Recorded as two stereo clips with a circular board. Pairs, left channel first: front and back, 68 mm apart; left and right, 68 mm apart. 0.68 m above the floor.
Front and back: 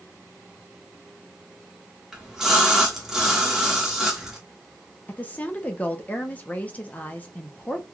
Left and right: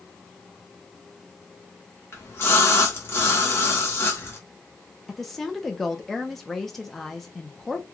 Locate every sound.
2.1 s a splash: 100° left, 1.0 m
5.1 s a woman speaking: 10° left, 0.6 m